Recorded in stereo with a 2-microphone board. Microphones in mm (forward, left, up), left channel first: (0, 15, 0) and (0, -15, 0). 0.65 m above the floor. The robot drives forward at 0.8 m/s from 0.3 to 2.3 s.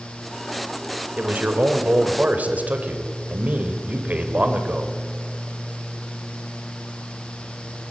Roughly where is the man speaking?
Right.